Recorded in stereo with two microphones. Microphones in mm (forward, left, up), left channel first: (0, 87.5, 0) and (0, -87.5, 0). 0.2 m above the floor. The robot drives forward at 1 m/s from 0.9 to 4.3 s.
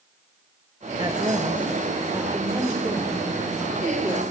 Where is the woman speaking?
30° right (ahead or behind), 2.5 m; by 4.2 s 15° right (ahead or behind), 5.5 m.